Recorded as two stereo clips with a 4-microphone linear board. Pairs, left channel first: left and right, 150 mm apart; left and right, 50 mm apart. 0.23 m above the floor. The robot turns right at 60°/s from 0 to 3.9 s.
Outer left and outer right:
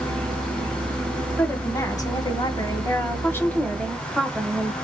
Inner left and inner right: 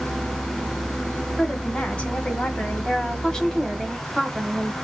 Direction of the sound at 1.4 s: 15° left (ahead or behind).